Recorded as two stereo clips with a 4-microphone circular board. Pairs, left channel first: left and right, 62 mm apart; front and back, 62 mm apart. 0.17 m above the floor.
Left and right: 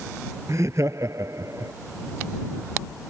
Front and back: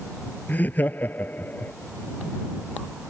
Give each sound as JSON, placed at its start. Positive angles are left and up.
{"t": 0.5, "sound": "laughter", "azimuth_deg": -55}